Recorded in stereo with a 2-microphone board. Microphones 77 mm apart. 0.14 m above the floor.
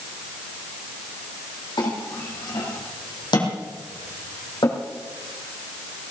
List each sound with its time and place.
1.8 s a clink: 70° left (ahead or behind), 4 m